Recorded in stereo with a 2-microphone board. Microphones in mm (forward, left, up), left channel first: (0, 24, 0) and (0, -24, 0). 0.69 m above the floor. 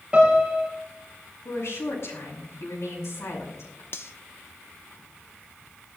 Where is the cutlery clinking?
60° left (ahead or behind), 0.9 m.